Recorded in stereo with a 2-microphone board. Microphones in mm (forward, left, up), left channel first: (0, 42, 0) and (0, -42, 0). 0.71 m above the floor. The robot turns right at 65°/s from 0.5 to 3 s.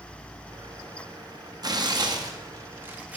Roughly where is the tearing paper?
Right.